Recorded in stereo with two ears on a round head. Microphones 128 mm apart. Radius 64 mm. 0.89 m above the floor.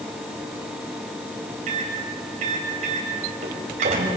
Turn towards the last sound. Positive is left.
turn(degrees=-55)  # may be behind; listen again after turning